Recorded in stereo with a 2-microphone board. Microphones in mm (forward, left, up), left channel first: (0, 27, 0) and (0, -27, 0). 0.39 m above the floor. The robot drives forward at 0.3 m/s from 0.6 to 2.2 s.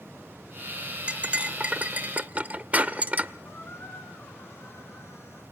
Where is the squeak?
50° left (ahead or behind), 3.5 m.